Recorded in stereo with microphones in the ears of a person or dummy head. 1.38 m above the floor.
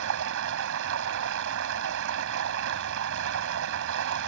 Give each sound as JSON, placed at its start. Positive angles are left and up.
{"t": 0.0, "sound": "running water", "side_deg": -65}